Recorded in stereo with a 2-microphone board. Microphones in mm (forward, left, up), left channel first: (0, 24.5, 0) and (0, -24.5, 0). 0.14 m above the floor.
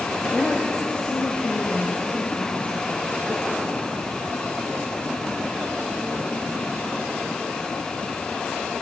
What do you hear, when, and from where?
0.3 s a woman speaking: 15° left (ahead or behind), 2 m; by 3.9 s 40° left (ahead or behind), 4 m